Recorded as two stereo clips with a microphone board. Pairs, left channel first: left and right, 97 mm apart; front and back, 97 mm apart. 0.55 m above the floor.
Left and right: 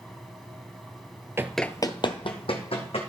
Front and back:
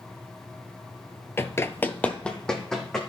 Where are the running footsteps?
45° right, 0.6 m; by 3.0 s 85° left, 2.5 m.